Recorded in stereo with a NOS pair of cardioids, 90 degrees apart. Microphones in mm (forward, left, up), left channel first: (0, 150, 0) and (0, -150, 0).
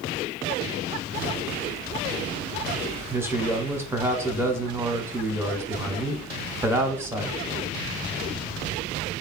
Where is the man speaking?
10° right, 0.7 m.